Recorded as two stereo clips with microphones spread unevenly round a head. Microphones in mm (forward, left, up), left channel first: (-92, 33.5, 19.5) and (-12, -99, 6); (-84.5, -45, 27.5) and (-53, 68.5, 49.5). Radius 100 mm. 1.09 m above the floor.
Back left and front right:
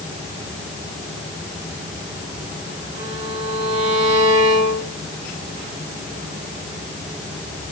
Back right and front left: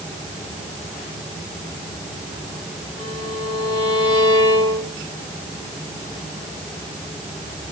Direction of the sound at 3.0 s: 35° right.